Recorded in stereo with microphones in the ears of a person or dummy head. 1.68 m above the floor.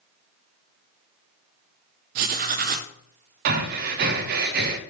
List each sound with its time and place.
2.1 s writing: 40° right (ahead or behind), 0.5 m
3.5 s breathing: 45° right (ahead or behind), 0.6 m